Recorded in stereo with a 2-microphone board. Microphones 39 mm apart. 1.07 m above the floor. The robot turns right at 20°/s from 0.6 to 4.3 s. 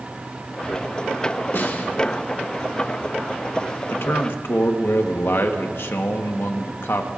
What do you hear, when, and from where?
1.5 s a snare drum: 70° left (ahead or behind), 1.8 m; by 1.9 s 65° left (ahead or behind), 1.8 m
3.9 s a man speaking: 85° left, 1.2 m; by 7.1 s 75° left (ahead or behind), 1.2 m